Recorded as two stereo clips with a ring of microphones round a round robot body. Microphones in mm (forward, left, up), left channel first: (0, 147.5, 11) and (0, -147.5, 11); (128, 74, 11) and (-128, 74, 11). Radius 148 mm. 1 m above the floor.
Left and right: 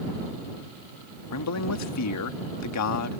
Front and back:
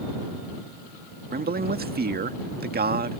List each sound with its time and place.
1.3 s a man speaking: 125° left